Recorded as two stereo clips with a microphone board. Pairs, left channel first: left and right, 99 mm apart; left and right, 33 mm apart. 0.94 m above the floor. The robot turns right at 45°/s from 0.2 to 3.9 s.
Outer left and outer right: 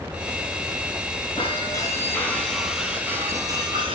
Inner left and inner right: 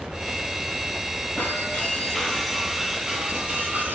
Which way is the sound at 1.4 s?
125° left.